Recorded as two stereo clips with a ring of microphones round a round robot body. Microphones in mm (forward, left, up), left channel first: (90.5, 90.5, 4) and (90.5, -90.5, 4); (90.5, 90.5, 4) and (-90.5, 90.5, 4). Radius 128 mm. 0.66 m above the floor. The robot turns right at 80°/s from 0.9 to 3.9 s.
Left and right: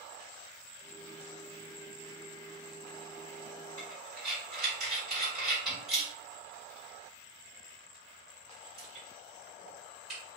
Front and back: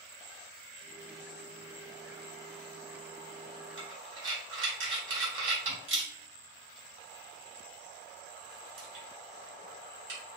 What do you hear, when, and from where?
3.8 s breathing: 170° left, 1.8 m; by 10.2 s straight behind, 1.8 m